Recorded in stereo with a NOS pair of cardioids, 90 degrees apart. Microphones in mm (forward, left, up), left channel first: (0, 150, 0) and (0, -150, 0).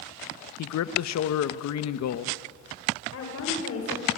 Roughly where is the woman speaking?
Ahead left.